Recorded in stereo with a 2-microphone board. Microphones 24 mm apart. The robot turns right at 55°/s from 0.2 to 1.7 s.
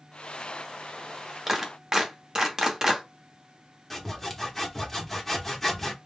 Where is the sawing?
15° left (ahead or behind), 0.9 m.